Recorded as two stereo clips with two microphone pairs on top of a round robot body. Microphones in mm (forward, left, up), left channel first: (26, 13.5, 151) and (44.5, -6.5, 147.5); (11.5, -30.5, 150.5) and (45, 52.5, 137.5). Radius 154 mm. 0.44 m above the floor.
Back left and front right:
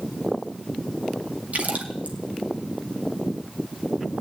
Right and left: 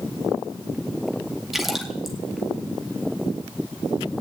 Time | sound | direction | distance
1.5 | a splash | 20° right | 2.5 m